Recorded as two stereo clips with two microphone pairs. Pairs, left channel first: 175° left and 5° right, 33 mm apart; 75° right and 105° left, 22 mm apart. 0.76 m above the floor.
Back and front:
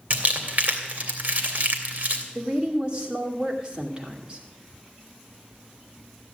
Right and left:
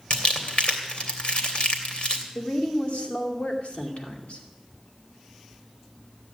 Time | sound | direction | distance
0.1 | crumpling | 55° right | 2.5 m
2.4 | a woman speaking | 70° right | 2.5 m